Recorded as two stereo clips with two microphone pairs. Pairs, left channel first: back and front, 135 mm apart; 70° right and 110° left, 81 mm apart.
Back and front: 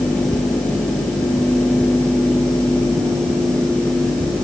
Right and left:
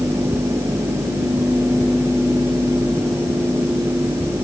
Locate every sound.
Only background noise.